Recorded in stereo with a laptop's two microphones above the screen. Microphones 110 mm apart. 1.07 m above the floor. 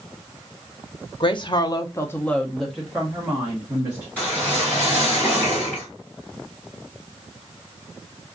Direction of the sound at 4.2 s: 15° left (ahead or behind).